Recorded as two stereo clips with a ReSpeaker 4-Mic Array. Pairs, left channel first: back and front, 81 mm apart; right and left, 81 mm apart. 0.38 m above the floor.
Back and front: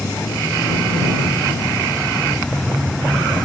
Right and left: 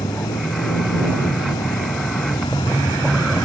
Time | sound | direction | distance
0.0 | a vehicle | 100° right | ?